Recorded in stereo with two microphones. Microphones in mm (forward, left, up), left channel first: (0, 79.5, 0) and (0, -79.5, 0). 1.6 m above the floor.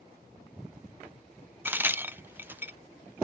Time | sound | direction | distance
1.6 | a crack | 15° right (ahead or behind) | ?